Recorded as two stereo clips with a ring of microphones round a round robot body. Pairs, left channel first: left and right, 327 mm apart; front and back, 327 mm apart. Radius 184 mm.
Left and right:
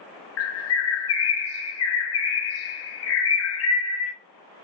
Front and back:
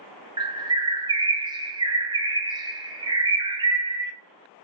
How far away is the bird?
About 0.6 m.